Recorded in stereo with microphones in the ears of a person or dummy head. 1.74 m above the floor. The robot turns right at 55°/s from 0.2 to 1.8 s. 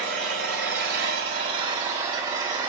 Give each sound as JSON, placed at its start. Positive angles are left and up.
{"t": 0.0, "sound": "an engine running", "azimuth_deg": -110, "distance_m": 3.0}